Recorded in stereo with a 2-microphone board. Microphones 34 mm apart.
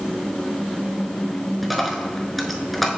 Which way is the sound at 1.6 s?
Centre (ahead or behind).